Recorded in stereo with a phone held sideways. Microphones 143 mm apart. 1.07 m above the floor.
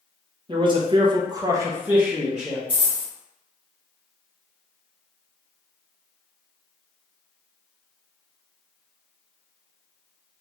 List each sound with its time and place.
0.5 s a man speaking: 35° right (ahead or behind), 0.7 m; by 2.6 s centre (ahead or behind), 0.9 m
2.7 s a dropped coin: 35° right (ahead or behind), 1.3 m